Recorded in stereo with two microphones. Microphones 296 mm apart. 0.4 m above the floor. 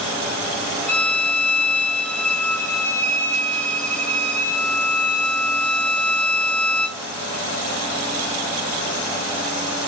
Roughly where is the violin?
Centre.